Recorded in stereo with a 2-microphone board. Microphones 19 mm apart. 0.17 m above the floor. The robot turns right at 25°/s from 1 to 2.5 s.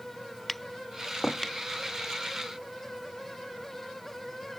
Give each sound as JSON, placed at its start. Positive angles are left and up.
{"t": 0.5, "sound": "tapping", "side_deg": 0}